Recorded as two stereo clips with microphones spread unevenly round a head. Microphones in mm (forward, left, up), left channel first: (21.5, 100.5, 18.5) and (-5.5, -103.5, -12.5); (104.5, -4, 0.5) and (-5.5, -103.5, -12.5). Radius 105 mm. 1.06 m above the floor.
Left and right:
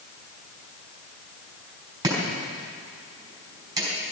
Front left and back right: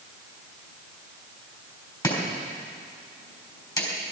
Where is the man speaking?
I don't hear a man speaking.